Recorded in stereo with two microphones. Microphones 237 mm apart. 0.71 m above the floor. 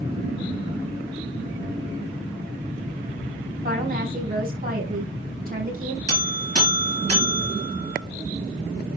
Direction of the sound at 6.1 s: 75° right (ahead or behind).